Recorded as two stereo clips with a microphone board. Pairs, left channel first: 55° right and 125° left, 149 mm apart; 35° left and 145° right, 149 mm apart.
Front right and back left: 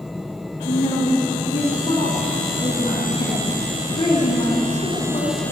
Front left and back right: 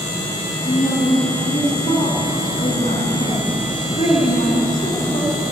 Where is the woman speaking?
5° left, 3 m.